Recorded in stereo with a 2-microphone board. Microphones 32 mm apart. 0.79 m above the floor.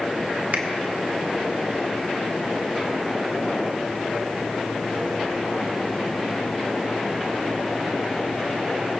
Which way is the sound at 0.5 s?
70° right (ahead or behind).